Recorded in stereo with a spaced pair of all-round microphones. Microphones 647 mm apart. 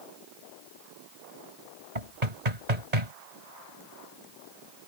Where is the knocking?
90° right.